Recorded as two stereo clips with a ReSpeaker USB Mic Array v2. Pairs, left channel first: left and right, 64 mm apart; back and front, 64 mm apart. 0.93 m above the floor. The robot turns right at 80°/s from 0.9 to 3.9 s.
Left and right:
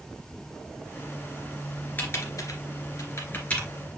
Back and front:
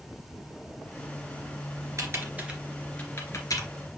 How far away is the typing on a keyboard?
About 2.5 m.